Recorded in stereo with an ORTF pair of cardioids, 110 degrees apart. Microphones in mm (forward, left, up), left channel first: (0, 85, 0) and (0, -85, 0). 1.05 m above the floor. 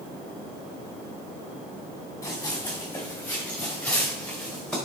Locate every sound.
2.2 s running footsteps: 15° left, 4 m; by 4.8 s 5° left, 5.5 m